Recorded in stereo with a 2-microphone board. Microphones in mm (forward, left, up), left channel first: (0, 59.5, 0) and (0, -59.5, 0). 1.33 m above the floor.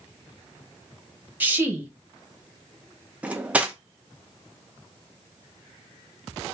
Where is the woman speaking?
15° right (ahead or behind), 0.9 m.